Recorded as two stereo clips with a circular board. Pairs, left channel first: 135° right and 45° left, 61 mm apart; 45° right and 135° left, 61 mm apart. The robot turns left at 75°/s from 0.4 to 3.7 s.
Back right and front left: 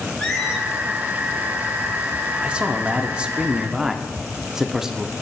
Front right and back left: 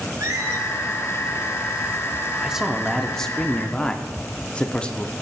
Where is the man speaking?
85° left, 0.7 m; by 5.1 s 15° right, 0.7 m.